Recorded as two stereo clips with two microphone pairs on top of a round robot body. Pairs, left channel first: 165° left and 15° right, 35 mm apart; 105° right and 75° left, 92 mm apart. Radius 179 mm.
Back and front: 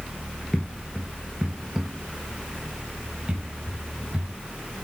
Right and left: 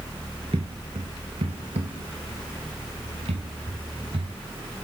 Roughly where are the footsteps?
Left.